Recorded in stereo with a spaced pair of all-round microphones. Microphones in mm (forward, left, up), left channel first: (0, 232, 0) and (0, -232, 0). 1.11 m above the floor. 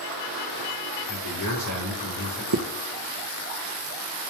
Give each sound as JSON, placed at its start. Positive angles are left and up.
{"t": 1.1, "sound": "a man speaking", "side_deg": 45, "distance_m": 4.5}
{"t": 2.5, "sound": "a zipper", "side_deg": -50, "distance_m": 0.9}